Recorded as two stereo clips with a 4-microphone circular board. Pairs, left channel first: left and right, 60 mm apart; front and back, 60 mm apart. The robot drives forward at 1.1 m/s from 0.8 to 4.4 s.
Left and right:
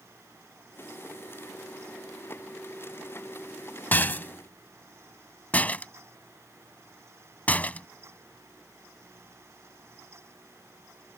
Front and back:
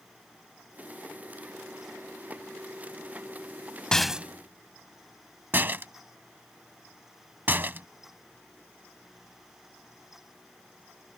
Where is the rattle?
70° left; by 7.9 s 140° left.